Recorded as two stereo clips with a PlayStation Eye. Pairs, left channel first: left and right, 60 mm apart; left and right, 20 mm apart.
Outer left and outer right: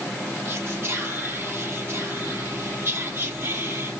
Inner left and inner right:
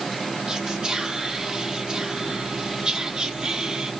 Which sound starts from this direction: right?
Whispering, at 0.5 s.